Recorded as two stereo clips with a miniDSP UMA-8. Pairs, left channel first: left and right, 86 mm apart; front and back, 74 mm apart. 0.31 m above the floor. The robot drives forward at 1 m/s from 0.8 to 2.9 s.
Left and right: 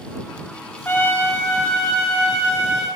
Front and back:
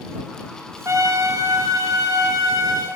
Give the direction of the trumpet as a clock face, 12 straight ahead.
7 o'clock.